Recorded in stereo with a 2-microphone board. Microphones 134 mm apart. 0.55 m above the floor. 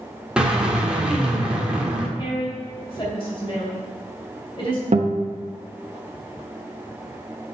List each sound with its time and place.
0.4 s a drill: 10° right (ahead or behind), 1.1 m
2.2 s a woman speaking: 40° left (ahead or behind), 3 m
4.9 s a guitar: 55° right (ahead or behind), 1.0 m